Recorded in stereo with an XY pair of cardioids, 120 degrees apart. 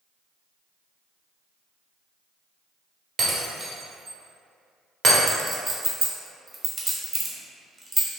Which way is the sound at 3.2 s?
45° right.